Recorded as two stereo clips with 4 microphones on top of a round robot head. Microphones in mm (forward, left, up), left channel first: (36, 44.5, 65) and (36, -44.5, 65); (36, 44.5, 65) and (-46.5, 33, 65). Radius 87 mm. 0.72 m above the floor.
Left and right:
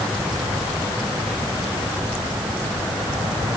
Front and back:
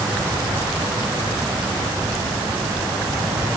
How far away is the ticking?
No ticking in this recording.